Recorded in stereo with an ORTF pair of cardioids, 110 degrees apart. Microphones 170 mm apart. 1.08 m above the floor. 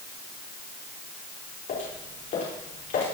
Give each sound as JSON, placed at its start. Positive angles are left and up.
{"t": 1.7, "sound": "footsteps", "azimuth_deg": 60, "distance_m": 5.0}